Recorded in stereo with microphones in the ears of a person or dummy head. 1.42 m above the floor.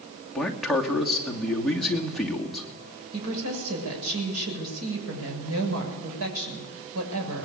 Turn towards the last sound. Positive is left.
turn(degrees=-90)